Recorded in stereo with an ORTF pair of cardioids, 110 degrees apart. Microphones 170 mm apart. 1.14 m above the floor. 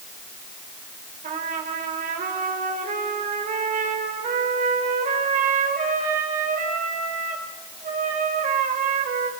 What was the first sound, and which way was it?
A trumpet, 50° right.